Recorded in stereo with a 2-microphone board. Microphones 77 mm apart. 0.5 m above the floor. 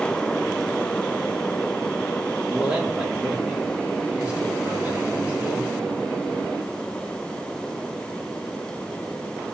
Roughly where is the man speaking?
Centre.